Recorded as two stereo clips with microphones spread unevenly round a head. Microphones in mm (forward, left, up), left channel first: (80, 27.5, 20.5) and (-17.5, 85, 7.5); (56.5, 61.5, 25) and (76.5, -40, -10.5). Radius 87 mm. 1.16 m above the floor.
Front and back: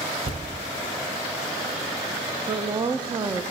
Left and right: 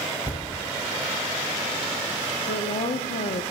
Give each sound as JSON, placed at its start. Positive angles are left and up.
{"t": 0.2, "sound": "a thud", "azimuth_deg": 160, "distance_m": 1.8}
{"t": 2.5, "sound": "a woman speaking", "azimuth_deg": 100, "distance_m": 0.7}